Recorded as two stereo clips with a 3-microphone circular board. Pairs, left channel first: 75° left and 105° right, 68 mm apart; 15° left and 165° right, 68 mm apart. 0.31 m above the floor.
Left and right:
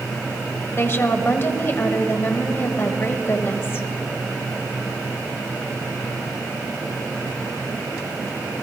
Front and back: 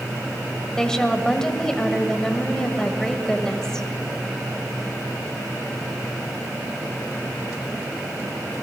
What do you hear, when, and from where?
0.8 s a woman speaking: 90° left, 1.2 m